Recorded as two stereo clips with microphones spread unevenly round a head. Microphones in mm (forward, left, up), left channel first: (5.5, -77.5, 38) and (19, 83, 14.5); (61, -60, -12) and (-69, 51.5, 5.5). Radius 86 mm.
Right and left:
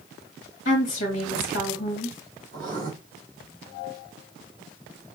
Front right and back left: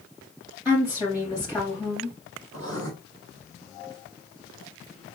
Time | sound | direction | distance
0.7 | a woman speaking | 135° right | 2.5 m
2.5 | writing | 125° left | 2.5 m